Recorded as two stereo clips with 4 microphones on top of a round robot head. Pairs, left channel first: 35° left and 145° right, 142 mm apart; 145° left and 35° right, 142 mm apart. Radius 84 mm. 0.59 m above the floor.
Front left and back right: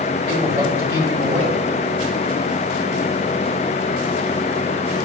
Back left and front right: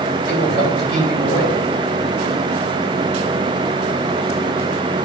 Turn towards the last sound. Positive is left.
turn(degrees=140)